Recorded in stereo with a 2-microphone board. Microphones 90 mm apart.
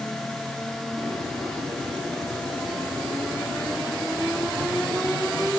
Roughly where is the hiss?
Right.